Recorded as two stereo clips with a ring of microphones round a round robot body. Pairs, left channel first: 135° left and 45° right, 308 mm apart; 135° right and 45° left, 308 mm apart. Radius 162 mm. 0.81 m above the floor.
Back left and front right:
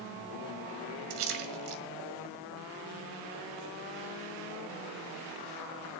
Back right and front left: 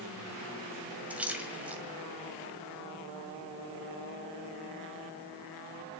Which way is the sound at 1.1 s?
40° right.